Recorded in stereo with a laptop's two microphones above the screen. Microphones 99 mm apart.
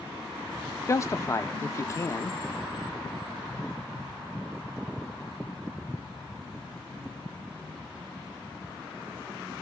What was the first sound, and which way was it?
A man speaking, 30° left (ahead or behind).